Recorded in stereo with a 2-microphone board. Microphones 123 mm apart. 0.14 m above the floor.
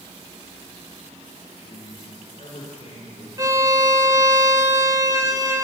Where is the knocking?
I don't hear knocking.